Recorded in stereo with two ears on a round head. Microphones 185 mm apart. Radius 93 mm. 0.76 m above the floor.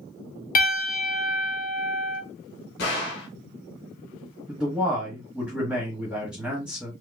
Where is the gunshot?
55° left (ahead or behind), 2.5 m.